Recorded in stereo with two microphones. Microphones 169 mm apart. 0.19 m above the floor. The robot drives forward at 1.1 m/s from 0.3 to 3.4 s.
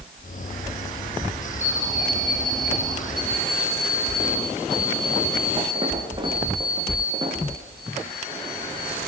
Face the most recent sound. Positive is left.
turn(degrees=-30)  # may be behind; listen again after turning